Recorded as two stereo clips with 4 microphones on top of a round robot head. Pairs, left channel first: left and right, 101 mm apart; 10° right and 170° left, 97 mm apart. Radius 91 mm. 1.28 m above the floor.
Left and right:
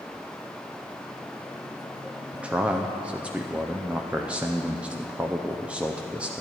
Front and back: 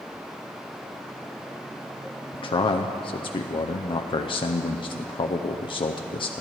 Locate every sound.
2.3 s a man speaking: 15° right, 0.6 m